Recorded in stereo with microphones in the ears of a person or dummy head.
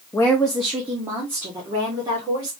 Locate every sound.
0.1 s a woman speaking: 15° left (ahead or behind), 0.6 m; by 2.5 s 20° right (ahead or behind), 2 m